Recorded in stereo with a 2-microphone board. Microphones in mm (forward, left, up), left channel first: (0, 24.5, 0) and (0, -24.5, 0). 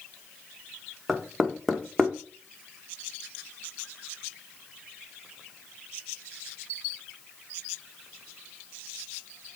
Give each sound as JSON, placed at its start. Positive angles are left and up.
{"t": 1.1, "sound": "knocking", "side_deg": 0, "distance_m": 1.2}